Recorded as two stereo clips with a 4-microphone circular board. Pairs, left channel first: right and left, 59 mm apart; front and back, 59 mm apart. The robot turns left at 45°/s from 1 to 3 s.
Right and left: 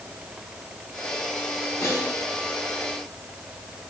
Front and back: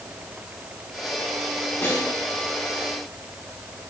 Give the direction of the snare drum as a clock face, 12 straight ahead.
2 o'clock.